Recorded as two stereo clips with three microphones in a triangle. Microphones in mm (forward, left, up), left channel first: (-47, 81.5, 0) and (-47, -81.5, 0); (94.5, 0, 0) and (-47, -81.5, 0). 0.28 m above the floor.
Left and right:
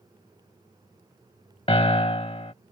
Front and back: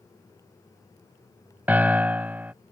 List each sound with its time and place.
1.7 s a piano: 135° left